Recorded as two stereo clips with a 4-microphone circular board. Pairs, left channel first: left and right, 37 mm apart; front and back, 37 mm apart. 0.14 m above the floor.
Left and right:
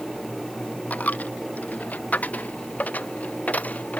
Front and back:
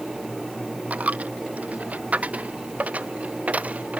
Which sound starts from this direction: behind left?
A dropped coin, at 0.9 s.